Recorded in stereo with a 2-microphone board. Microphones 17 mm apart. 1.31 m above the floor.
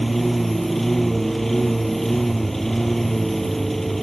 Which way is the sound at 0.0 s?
5° left (ahead or behind).